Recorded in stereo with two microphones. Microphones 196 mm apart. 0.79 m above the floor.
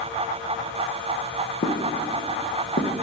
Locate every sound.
1.6 s footsteps: 55° left (ahead or behind), 2 m; by 2.9 s 65° left (ahead or behind), 1.7 m